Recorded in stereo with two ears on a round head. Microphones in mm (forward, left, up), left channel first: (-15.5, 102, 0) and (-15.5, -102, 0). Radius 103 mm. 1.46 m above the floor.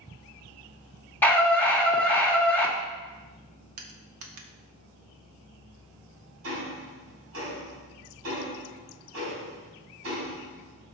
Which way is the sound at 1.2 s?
10° left (ahead or behind).